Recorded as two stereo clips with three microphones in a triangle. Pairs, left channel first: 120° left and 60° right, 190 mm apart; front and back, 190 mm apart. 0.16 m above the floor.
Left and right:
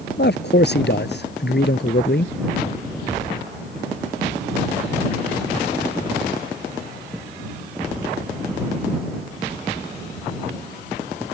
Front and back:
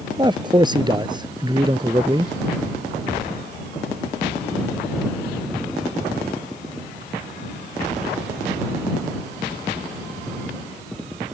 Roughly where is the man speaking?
Behind left.